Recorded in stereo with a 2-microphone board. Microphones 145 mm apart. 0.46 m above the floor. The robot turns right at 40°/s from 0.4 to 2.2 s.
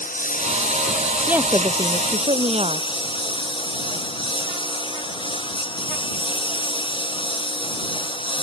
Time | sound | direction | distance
0.0 | a lawn mower | 70° left | ?
1.3 | a woman speaking | 170° right | ?